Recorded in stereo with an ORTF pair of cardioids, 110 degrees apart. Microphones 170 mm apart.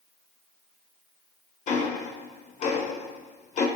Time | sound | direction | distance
1.7 | ticking | 45° left | 0.8 m